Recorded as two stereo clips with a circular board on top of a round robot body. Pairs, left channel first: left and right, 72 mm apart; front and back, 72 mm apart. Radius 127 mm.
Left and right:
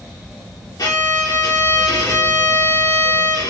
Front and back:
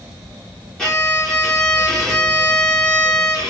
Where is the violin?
80° left, 1.6 m.